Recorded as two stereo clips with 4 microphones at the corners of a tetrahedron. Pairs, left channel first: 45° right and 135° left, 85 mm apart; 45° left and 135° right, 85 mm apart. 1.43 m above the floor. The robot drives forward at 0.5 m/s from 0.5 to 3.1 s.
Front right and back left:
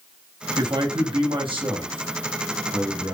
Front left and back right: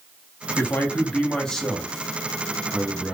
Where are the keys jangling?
I don't hear keys jangling.